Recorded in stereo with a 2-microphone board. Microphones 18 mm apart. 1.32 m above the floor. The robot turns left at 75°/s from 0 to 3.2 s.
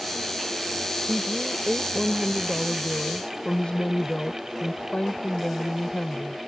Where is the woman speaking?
85° right; by 6.4 s 115° left.